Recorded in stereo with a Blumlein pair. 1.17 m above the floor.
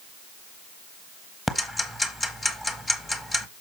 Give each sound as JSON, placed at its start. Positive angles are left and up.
{"t": 1.5, "sound": "ticking", "azimuth_deg": 10, "distance_m": 1.0}